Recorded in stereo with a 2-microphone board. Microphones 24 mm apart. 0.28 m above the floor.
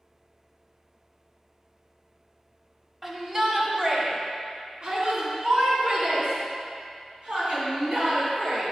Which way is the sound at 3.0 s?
25° right (ahead or behind).